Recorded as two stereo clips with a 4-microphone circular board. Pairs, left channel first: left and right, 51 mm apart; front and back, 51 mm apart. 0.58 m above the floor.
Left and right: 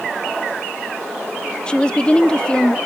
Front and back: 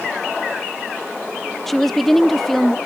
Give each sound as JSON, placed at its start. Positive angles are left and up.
{"t": 1.7, "sound": "a woman speaking", "azimuth_deg": 80}